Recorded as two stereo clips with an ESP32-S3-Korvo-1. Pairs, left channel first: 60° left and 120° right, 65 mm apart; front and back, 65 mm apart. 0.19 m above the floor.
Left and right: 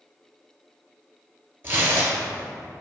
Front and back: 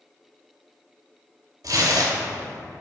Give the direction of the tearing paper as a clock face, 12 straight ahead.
6 o'clock.